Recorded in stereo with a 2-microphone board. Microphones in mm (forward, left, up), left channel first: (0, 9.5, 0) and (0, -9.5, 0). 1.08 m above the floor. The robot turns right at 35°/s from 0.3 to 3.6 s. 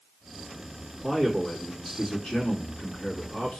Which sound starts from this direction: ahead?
A man speaking, at 1.0 s.